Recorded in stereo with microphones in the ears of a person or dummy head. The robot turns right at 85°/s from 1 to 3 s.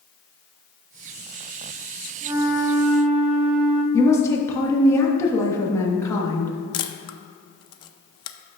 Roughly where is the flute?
Right.